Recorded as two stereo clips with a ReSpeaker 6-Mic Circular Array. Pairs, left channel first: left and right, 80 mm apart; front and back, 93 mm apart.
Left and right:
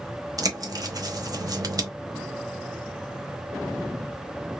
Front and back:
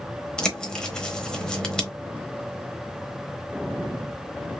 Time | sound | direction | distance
0.4 | a bird | 80° right | 0.9 m